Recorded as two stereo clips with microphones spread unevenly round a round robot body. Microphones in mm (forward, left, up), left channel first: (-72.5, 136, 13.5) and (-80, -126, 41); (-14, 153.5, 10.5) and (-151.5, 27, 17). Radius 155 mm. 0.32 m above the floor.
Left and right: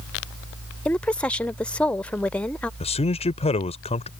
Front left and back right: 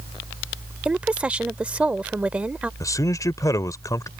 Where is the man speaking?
90° left.